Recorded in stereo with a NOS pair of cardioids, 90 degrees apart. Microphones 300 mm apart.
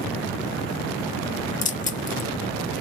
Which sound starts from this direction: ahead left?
Keys jangling, at 1.6 s.